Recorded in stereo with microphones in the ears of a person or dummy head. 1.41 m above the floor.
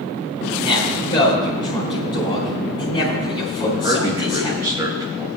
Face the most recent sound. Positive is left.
turn(degrees=-15)  # may be behind; listen again after turning